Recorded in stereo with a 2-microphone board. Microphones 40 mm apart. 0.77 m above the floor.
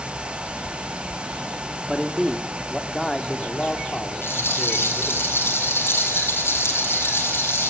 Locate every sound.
1.9 s a man speaking: 10° right (ahead or behind), 1.8 m; by 5.2 s 40° left (ahead or behind), 2.5 m
4.2 s a rattle: 70° left (ahead or behind), 7 m